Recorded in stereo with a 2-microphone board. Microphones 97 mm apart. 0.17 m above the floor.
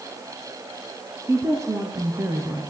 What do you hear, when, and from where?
1.3 s a woman speaking: 25° right (ahead or behind), 1.4 m; by 2.6 s 35° right (ahead or behind), 2.5 m